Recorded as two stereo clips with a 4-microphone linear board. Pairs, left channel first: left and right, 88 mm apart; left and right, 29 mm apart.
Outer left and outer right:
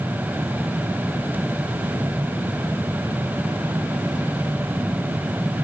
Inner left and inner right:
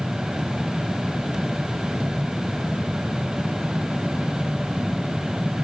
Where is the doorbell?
No doorbell in this recording.